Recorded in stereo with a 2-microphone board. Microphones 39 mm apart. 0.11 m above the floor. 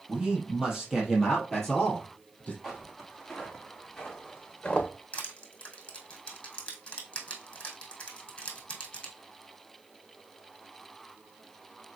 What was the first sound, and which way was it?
A man speaking, 25° right (ahead or behind).